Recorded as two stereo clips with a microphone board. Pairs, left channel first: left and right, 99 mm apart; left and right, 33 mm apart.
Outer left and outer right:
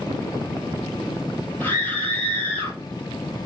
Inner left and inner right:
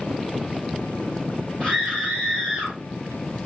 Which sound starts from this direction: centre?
A scream, at 1.6 s.